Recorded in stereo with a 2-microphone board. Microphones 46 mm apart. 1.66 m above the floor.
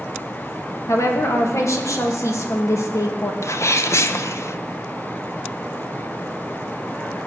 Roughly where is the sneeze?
Left.